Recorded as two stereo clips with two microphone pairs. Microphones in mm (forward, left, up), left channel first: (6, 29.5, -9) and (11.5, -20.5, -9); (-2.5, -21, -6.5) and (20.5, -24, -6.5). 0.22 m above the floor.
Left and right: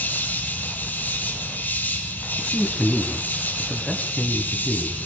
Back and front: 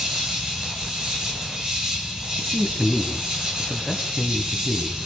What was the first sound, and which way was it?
An insect, 45° left.